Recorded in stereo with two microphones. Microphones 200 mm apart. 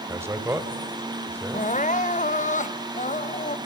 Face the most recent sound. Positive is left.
turn(degrees=40)  # may be behind; listen again after turning